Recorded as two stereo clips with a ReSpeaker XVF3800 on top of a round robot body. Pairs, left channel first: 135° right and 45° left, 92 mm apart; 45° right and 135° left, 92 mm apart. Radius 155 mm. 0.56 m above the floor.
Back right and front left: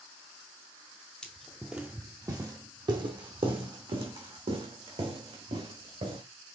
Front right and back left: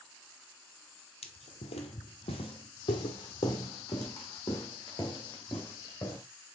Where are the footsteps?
55° right, 1.1 m; by 6.2 s 25° left, 3.5 m.